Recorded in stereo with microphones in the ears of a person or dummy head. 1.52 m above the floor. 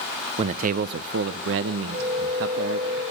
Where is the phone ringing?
40° right (ahead or behind), 5.5 m.